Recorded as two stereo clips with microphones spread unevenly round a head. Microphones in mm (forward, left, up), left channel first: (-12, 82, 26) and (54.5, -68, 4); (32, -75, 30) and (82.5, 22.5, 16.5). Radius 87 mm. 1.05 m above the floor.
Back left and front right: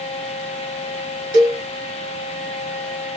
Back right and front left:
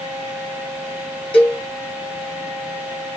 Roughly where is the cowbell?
Right.